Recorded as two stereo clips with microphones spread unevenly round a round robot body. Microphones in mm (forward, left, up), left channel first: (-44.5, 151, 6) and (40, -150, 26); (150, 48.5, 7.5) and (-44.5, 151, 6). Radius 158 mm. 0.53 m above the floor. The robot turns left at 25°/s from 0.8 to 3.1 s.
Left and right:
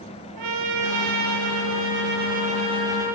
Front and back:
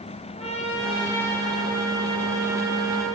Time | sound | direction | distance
0.4 | a trumpet | 100° right | 6 m